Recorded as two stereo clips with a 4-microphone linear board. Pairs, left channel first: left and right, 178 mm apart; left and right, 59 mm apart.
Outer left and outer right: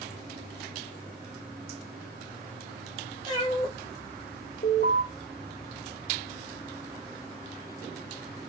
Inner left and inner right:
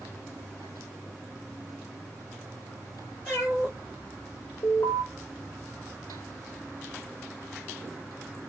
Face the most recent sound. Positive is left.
turn(degrees=50)  # may be behind; listen again after turning